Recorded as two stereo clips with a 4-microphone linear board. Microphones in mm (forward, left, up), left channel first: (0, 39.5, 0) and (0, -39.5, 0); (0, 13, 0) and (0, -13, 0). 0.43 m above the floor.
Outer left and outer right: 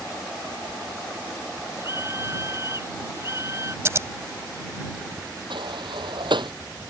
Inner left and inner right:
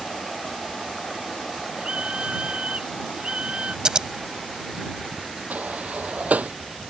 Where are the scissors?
35° right (ahead or behind).